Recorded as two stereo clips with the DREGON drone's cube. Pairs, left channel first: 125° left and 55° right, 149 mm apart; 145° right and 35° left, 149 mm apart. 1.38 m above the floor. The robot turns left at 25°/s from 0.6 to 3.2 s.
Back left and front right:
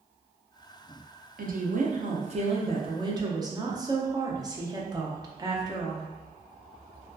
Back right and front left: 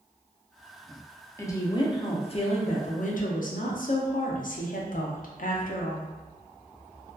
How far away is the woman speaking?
About 0.5 m.